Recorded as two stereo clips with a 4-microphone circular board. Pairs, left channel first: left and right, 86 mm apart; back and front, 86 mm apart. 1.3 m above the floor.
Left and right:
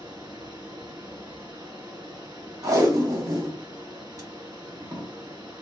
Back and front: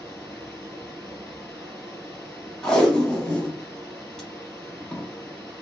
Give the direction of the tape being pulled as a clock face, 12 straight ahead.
3 o'clock.